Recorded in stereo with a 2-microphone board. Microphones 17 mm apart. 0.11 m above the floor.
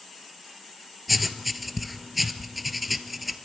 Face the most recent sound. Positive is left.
turn(degrees=-10)  # may be behind; listen again after turning